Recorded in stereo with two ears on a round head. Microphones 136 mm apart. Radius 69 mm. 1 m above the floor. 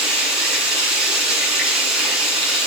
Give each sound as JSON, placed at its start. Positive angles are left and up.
{"t": 0.0, "sound": "running water", "side_deg": 0, "distance_m": 4.5}